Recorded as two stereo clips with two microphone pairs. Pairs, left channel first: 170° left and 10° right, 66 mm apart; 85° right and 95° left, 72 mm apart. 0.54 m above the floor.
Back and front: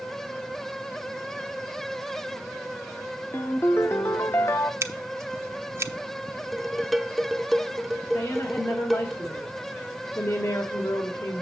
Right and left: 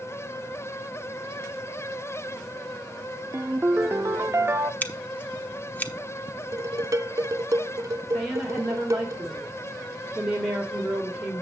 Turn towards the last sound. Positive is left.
turn(degrees=180)